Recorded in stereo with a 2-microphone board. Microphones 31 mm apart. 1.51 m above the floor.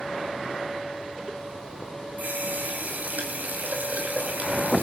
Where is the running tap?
65° right (ahead or behind), 6 m.